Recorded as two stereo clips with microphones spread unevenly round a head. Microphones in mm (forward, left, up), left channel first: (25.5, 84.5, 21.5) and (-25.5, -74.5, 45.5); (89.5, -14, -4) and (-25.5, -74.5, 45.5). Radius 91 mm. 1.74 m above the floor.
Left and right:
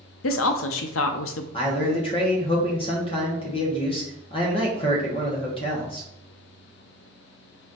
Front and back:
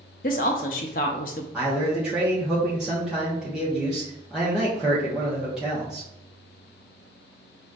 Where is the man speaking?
135° left, 1.1 m.